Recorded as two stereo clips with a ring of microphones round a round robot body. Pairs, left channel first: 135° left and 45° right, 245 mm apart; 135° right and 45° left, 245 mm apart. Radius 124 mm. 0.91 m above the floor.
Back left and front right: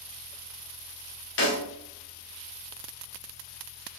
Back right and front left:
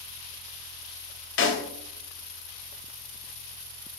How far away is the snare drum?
About 0.7 m.